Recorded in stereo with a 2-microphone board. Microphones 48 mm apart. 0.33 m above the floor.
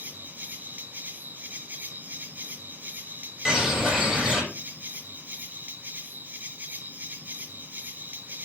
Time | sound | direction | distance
0.0 | an insect | 35° right (ahead or behind) | 1.2 m
3.5 | a bird | 5° right (ahead or behind) | 7 m